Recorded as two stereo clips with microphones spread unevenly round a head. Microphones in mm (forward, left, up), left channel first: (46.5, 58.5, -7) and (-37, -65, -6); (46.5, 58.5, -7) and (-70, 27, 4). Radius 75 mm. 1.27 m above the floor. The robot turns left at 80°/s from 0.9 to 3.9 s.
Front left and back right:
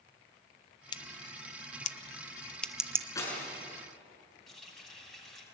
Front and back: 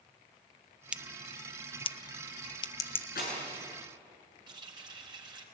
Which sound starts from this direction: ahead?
Breaking glass, at 3.1 s.